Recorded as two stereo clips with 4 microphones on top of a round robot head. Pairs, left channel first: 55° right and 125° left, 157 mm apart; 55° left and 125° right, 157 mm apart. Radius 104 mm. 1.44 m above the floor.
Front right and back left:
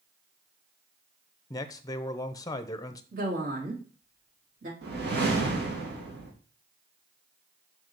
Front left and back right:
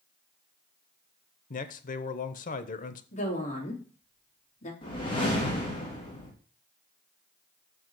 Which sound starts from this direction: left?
A woman speaking, at 3.1 s.